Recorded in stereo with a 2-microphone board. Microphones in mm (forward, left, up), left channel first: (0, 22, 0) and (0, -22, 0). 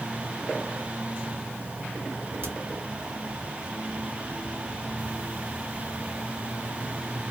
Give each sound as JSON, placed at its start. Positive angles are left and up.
{"t": 2.4, "sound": "a crack", "side_deg": -50, "distance_m": 1.2}